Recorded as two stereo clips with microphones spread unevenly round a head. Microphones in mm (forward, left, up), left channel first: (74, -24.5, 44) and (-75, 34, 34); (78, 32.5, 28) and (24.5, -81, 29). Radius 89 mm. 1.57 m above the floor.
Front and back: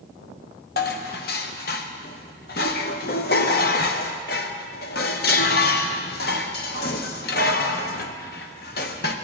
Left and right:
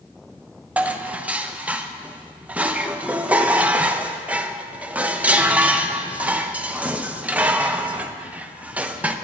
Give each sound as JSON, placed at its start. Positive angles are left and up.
{"t": 0.8, "sound": "dishes clattering", "azimuth_deg": -40, "distance_m": 0.9}